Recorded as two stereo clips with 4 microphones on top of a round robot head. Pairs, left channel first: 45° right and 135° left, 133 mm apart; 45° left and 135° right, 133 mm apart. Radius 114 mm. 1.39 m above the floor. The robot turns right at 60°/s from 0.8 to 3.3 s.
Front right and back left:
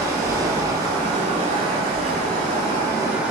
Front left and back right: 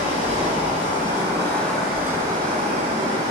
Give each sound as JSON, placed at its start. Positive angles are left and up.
{"t": 0.0, "sound": "running water", "azimuth_deg": 75, "distance_m": 5.5}